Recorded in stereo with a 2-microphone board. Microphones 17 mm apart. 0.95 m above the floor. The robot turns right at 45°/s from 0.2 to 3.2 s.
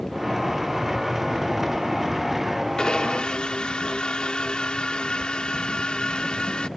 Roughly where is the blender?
Left.